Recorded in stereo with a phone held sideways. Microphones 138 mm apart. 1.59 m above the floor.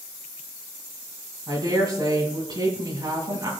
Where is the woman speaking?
35° right (ahead or behind), 2.5 m.